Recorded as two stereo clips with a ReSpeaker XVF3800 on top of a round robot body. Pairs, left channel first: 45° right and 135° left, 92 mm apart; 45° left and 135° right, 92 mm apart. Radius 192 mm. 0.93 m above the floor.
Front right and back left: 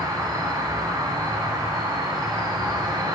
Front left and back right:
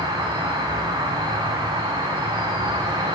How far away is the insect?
About 4.5 m.